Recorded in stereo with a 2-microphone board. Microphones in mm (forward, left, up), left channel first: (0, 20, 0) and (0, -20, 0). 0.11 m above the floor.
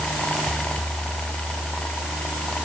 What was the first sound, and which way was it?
Only background noise.